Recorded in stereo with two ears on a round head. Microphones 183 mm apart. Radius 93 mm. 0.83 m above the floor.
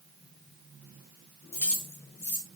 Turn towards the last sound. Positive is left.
turn(degrees=10)  # may be behind; listen again after turning